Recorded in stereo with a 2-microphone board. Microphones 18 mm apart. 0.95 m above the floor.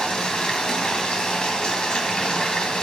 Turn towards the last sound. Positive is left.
turn(degrees=55)  # may be behind; listen again after turning